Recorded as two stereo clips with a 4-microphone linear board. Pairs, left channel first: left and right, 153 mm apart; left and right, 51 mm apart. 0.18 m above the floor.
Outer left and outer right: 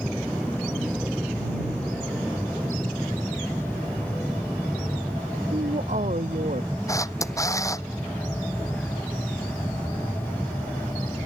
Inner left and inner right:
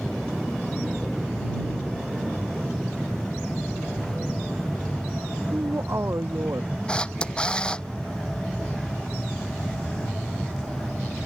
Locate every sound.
0.0 s an aircraft: 5° right (ahead or behind); by 11.3 s 10° left (ahead or behind)
5.5 s a man speaking: 55° right (ahead or behind)
6.9 s a camera shutter: 20° left (ahead or behind)